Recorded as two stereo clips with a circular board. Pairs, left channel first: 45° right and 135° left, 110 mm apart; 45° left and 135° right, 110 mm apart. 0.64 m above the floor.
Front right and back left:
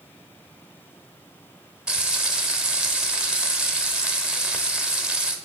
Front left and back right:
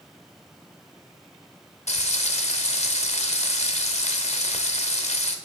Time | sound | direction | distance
1.9 | frying | 50° left | 0.8 m